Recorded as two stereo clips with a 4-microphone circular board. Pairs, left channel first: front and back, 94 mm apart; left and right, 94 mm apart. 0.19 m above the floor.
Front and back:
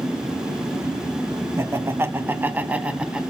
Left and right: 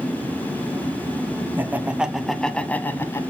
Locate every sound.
1.6 s laughter: 145° right, 1.1 m; by 3.2 s 110° left, 1.1 m